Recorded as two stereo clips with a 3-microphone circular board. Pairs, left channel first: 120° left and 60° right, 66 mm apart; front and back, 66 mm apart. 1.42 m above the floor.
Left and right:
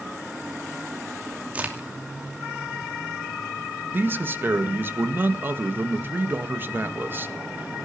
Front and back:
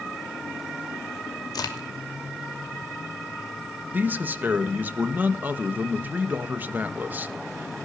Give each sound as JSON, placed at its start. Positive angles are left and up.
{"t": 1.5, "sound": "a crack", "azimuth_deg": 10, "distance_m": 2.5}
{"t": 3.9, "sound": "a man speaking", "azimuth_deg": -120, "distance_m": 1.5}